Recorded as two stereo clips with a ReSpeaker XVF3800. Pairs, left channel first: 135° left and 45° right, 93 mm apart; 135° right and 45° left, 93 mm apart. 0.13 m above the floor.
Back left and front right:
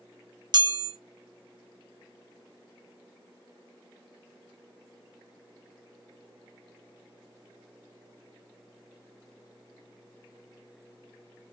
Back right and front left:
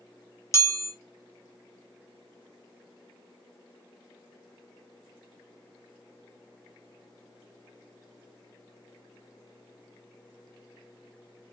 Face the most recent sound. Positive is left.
turn(degrees=-80)